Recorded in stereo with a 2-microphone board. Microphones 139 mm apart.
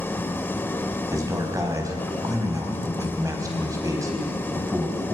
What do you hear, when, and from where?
0.0 s an engine running: 15° left (ahead or behind), 0.8 m
1.1 s a man speaking: 25° right (ahead or behind), 3.5 m